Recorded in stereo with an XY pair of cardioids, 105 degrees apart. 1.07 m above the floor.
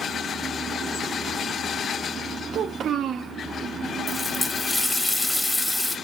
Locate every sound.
2.5 s a child speaking: 60° right, 0.7 m
4.1 s a running tap: 10° left, 1.6 m